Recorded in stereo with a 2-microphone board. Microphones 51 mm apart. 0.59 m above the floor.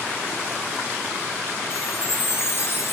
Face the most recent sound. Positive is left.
turn(degrees=50)  # may be behind; listen again after turning